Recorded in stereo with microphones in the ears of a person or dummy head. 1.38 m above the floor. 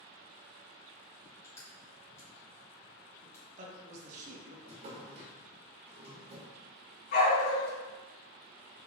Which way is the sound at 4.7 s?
40° right (ahead or behind).